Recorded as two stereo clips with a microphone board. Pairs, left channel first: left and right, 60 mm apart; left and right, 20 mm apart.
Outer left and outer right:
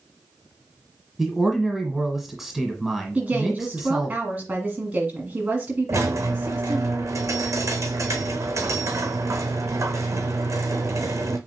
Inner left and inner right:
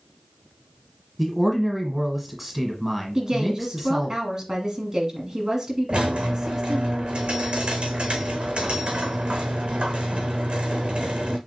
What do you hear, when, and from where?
1.2 s a man speaking: 5° right (ahead or behind), 1.3 m
3.1 s a woman speaking: 25° right (ahead or behind), 1.5 m
5.9 s a squeak: 65° right (ahead or behind), 0.7 m